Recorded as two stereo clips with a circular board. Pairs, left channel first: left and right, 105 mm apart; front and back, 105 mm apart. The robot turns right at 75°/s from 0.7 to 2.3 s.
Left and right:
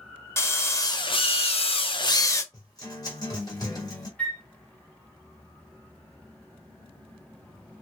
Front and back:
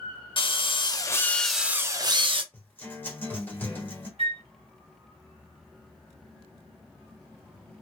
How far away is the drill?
About 0.5 m.